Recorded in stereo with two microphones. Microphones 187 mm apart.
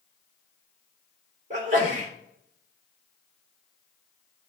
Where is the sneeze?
40° right (ahead or behind), 3.5 m.